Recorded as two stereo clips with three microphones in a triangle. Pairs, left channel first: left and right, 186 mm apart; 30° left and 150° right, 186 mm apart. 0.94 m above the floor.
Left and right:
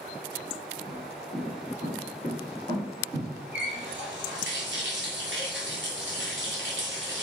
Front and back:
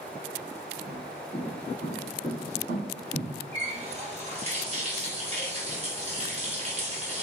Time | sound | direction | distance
0.9 | footsteps | 105° right | 2.0 m
3.5 | a running tap | 95° right | 0.9 m